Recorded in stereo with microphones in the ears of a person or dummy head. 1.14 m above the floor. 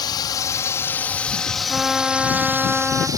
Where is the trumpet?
Centre (ahead or behind).